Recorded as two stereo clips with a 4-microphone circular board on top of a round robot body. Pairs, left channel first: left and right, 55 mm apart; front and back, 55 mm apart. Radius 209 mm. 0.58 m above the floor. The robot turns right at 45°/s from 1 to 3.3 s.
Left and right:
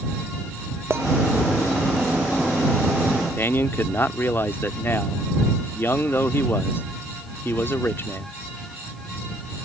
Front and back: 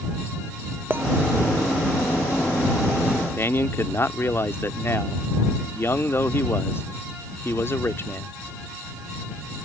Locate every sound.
0.9 s a clink: 130° right
3.4 s a man speaking: 40° left